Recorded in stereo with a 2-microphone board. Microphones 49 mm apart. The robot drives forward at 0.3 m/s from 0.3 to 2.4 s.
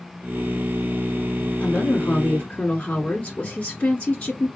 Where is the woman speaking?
30° left (ahead or behind), 1.9 m.